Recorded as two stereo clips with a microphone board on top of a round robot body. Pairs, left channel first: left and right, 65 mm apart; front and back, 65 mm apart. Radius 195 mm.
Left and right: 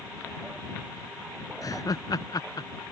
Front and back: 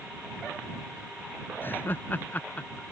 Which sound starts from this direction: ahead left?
Laughter, at 1.6 s.